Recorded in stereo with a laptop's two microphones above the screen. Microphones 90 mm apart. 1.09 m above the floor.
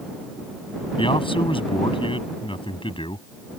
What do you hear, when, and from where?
1.0 s a man speaking: 75° left (ahead or behind)